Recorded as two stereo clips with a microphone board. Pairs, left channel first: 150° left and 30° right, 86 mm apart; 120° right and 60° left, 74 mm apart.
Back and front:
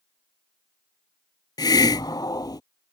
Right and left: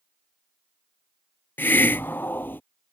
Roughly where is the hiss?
Behind.